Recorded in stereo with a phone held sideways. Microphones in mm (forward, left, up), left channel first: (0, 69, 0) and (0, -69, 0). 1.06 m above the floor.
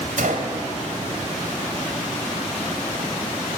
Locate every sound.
0.2 s a gunshot: 80° right, 2.5 m